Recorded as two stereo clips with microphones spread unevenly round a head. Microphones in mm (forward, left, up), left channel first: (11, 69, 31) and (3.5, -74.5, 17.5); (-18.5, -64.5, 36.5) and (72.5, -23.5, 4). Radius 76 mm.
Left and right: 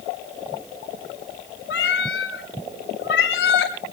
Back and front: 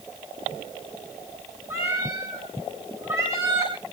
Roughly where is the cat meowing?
Left.